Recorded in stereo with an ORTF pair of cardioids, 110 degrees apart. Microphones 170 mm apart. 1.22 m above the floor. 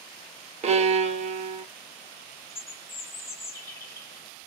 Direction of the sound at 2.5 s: 15° left.